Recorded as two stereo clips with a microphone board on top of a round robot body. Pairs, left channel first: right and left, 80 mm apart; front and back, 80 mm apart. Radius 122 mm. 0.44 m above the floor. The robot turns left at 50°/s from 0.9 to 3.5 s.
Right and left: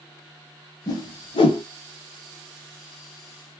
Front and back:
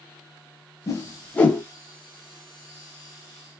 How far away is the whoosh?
About 0.5 m.